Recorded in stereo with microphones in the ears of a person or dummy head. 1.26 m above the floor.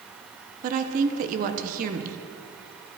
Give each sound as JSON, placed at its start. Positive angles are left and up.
{"t": 0.6, "sound": "a woman speaking", "side_deg": -40, "distance_m": 0.8}